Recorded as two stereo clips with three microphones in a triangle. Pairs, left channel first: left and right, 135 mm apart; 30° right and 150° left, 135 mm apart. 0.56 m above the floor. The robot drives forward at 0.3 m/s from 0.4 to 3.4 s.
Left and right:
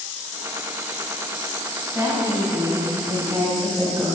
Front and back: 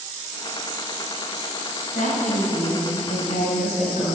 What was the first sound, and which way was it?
A woman speaking, 20° right.